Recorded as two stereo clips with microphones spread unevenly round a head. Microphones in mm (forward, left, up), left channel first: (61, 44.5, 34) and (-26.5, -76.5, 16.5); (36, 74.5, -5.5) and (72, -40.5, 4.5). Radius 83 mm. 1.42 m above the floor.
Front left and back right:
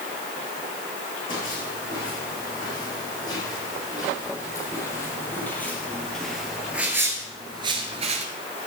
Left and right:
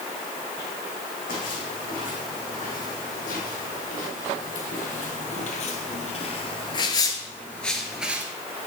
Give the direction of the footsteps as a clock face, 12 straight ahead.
8 o'clock.